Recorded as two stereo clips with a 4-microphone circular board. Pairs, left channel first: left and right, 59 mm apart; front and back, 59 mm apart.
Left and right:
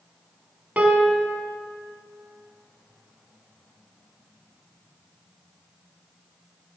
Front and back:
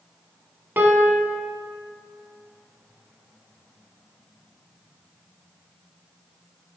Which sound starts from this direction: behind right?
A piano, at 0.8 s.